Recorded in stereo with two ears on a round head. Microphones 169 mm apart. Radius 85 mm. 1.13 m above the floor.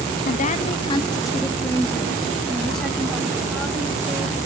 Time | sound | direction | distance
0.2 | a woman speaking | 50° left (ahead or behind) | 0.9 m